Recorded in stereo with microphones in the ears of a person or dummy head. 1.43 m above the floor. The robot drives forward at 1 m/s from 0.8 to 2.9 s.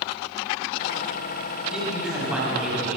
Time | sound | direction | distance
1.7 | a man speaking | centre (ahead or behind) | 9 m